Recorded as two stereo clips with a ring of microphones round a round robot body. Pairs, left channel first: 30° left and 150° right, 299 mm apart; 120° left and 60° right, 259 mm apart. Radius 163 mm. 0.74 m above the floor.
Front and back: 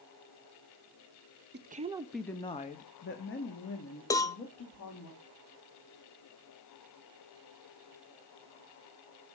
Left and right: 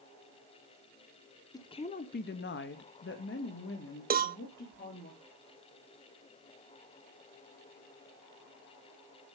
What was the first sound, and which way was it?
A woman speaking, 170° right.